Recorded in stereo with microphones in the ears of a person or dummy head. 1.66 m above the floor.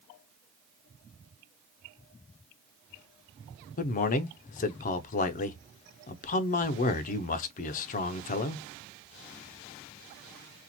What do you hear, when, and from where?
3.8 s a man speaking: 40° left (ahead or behind), 0.7 m